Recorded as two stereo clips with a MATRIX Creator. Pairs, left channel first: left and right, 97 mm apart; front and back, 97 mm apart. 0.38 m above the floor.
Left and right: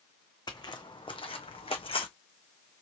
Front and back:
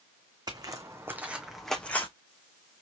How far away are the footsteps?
About 1.2 m.